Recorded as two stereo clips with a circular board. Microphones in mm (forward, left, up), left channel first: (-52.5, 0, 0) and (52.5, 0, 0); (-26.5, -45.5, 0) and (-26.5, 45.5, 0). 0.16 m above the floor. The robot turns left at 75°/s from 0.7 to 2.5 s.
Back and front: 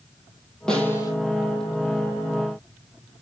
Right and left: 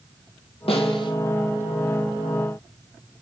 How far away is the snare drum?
About 2.5 m.